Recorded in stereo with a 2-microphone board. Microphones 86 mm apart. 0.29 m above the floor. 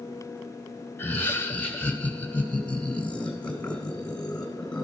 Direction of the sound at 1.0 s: 25° left (ahead or behind).